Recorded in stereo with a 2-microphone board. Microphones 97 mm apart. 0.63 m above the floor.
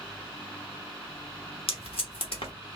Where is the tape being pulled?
70° left (ahead or behind), 1.1 m.